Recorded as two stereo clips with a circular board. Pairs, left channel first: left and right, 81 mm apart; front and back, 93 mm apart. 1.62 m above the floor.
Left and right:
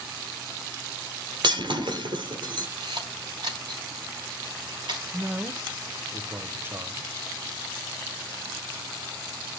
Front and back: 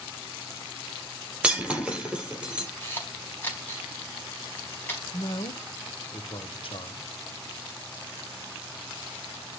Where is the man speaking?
25° right, 1.1 m.